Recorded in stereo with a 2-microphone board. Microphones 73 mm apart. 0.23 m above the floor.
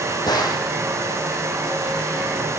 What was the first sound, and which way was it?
A gunshot, 70° left (ahead or behind).